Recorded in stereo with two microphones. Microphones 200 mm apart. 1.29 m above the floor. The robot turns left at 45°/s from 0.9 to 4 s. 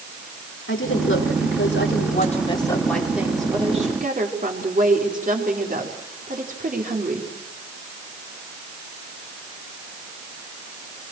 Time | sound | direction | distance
0.7 | a woman speaking | 95° left | 4 m